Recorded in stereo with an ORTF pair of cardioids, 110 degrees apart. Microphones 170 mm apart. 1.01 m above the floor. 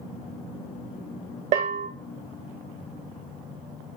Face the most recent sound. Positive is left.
turn(degrees=-45)